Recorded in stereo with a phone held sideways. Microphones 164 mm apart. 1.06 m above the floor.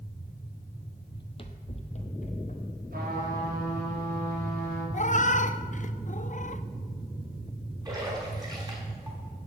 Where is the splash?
25° right (ahead or behind), 4.5 m.